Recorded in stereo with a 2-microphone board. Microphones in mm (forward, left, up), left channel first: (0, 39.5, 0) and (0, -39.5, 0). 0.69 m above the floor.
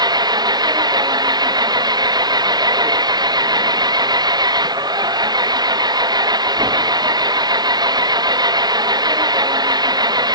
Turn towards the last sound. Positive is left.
turn(degrees=-55)  # may be behind; listen again after turning